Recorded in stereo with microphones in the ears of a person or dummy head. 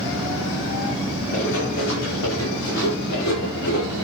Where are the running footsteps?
70° left (ahead or behind), 7.5 m; by 4.0 s 75° left (ahead or behind), 8.5 m.